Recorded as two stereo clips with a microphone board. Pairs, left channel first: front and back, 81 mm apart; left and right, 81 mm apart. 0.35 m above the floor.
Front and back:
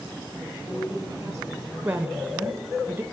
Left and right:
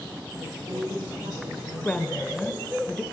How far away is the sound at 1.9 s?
About 0.9 m.